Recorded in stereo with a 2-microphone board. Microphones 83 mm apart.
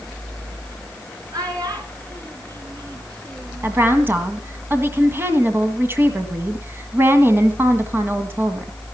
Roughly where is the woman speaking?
Right.